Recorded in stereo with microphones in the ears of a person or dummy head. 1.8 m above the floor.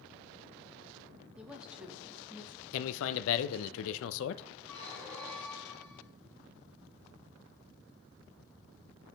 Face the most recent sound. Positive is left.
turn(degrees=0)  # may be behind; listen again after turning